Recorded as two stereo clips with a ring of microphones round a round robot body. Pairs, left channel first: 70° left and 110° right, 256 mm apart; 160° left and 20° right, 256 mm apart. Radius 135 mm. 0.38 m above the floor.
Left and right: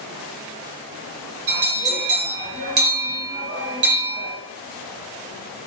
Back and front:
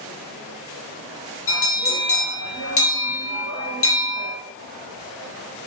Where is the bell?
165° right, 0.7 m.